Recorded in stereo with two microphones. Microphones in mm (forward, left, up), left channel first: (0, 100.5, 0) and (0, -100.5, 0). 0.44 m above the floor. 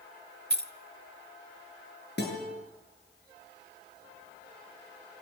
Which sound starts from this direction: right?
Keys jangling, at 0.5 s.